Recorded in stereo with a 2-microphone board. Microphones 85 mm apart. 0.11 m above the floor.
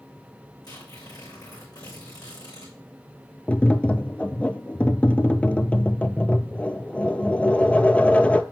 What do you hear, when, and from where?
0.6 s tearing paper: 55° left (ahead or behind), 6 m
3.5 s tapping: 15° left (ahead or behind), 0.5 m